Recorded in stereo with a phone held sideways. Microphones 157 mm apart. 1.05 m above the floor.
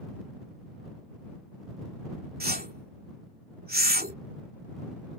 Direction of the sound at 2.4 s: 75° right (ahead or behind).